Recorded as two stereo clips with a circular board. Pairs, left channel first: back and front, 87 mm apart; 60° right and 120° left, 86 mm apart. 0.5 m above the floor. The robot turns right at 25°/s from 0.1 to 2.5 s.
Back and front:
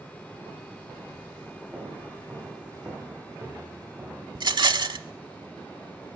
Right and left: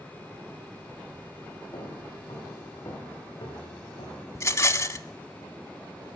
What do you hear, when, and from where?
1.7 s footsteps: 70° right, 7.5 m; by 4.2 s 65° right, 7 m
4.3 s a rattle: 10° right, 0.6 m